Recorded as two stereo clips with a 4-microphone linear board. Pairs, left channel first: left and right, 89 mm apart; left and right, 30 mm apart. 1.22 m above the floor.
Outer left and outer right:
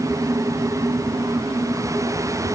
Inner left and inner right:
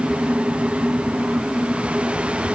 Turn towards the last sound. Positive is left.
No sound to turn to.